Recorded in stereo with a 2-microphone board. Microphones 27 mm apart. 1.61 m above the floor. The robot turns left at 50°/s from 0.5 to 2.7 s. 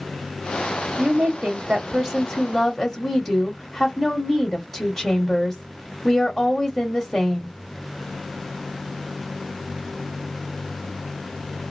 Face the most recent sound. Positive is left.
turn(degrees=165)